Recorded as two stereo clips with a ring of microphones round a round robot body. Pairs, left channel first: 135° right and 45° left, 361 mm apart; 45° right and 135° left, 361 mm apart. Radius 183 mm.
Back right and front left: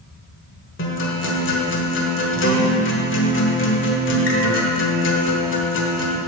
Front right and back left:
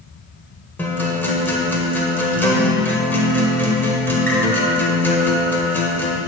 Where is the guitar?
125° right, 1.2 m.